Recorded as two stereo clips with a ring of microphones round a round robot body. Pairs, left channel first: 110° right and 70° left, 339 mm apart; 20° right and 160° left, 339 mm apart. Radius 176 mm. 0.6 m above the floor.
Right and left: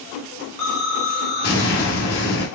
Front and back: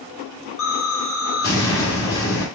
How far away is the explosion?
About 1.7 m.